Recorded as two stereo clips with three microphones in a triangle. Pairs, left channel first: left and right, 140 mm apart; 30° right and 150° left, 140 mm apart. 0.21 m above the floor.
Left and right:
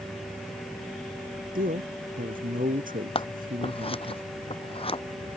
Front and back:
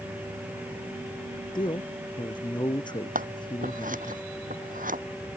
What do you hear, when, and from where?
1.6 s a man speaking: 85° right
3.1 s scissors: 140° left